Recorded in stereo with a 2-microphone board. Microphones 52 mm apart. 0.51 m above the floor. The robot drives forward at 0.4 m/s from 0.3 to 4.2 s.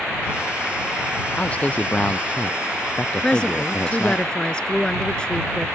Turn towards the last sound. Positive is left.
turn(degrees=15)  # may be behind; listen again after turning